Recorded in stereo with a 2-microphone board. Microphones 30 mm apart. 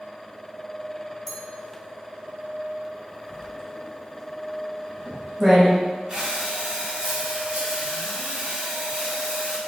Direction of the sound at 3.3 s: 10° right (ahead or behind).